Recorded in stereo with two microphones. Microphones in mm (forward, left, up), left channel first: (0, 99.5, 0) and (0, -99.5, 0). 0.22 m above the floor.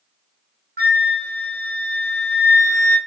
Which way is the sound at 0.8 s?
55° right (ahead or behind).